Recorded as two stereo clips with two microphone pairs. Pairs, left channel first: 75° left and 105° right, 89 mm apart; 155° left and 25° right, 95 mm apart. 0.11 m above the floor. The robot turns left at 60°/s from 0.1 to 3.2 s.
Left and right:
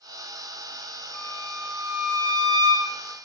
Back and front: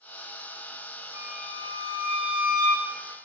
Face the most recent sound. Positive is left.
turn(degrees=-105)